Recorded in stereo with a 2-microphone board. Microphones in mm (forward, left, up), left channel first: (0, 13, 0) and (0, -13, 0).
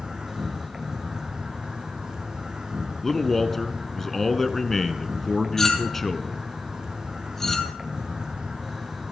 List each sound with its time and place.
0.0 s an insect: 30° right (ahead or behind), 3 m
3.0 s a man speaking: 10° left (ahead or behind), 1.1 m
5.6 s a clink: 15° left (ahead or behind), 2 m